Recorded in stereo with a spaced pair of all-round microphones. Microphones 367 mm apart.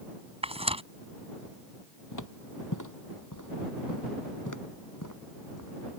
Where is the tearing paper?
15° right (ahead or behind).